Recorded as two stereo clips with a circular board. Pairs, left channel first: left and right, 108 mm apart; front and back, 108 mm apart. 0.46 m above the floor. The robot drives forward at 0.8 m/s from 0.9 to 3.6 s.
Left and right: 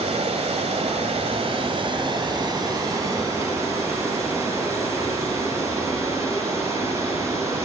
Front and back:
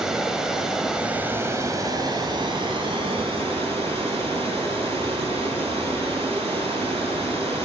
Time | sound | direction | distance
0.0 | running water | 95° right | 1.3 m